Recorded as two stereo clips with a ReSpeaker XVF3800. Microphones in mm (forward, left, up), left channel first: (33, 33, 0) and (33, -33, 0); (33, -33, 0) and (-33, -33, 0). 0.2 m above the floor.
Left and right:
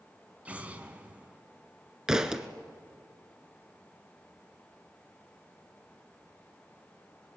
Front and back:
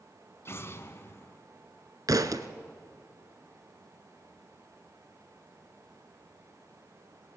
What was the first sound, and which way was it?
An explosion, 25° right.